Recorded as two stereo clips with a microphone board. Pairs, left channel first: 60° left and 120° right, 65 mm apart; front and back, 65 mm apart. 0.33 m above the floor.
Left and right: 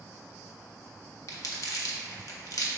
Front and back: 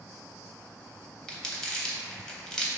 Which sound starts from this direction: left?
Crumpling, at 1.3 s.